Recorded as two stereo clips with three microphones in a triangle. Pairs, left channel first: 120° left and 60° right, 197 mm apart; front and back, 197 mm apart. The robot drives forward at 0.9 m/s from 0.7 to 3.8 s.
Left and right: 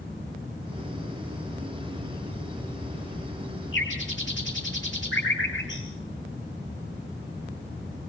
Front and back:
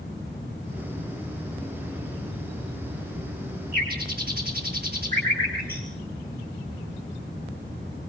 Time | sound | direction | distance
3.7 | a bird | 140° left | 6.5 m